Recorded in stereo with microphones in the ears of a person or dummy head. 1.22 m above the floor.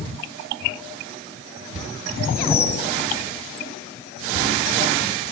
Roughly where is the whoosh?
Centre.